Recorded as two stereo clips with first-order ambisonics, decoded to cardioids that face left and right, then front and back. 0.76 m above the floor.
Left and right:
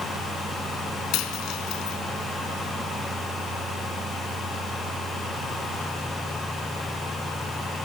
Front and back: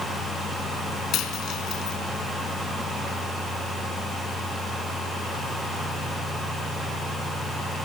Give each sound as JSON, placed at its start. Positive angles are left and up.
{"t": 1.1, "sound": "a dropped coin", "azimuth_deg": 55, "distance_m": 3.0}